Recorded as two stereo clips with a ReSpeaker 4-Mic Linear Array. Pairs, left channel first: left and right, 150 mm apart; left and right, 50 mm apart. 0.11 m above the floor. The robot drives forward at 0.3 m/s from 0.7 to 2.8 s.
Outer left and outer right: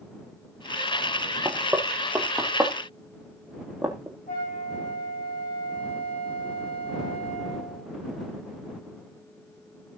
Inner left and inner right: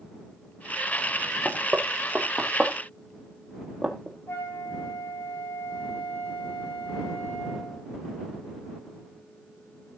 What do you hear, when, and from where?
1.4 s knocking: 15° right (ahead or behind), 2.5 m; by 4.2 s 10° right (ahead or behind), 3 m
4.3 s a flute: 75° left (ahead or behind), 9.5 m